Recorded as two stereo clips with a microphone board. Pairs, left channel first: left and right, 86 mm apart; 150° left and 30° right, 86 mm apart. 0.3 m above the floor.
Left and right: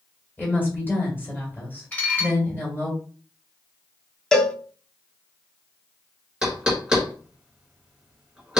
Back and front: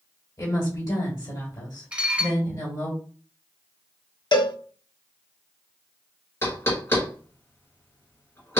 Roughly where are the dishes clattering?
Ahead left.